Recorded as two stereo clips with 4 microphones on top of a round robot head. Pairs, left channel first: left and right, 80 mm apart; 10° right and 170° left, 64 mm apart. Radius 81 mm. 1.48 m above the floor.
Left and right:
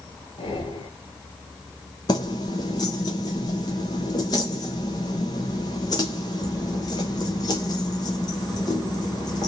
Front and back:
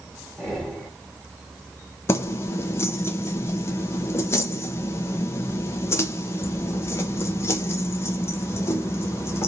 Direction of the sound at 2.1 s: 35° left.